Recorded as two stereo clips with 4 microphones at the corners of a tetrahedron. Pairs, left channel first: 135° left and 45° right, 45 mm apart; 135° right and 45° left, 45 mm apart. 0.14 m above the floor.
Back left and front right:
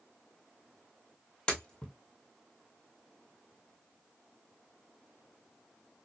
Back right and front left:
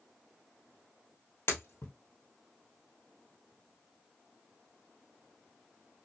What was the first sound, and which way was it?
Breaking glass, 155° right.